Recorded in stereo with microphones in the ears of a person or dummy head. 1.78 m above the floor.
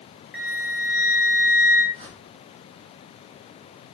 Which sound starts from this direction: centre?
A flute, at 0.3 s.